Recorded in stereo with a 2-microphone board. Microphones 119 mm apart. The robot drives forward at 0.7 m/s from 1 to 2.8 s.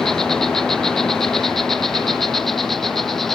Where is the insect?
5° left (ahead or behind).